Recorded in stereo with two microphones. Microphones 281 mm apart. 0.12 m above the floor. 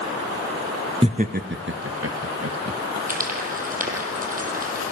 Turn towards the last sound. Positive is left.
turn(degrees=-30)  # may be behind; listen again after turning